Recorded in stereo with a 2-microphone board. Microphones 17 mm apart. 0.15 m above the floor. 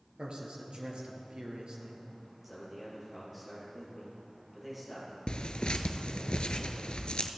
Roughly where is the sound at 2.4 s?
Centre.